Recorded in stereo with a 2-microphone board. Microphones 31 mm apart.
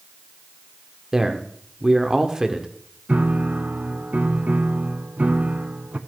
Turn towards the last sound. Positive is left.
turn(degrees=-60)  # may be behind; listen again after turning